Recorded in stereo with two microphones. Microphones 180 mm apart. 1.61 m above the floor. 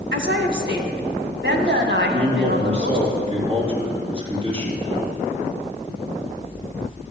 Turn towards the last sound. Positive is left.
turn(degrees=-35)  # may be behind; listen again after turning